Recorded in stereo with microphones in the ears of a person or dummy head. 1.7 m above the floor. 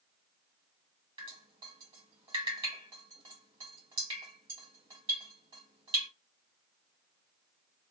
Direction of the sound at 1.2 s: 20° right (ahead or behind).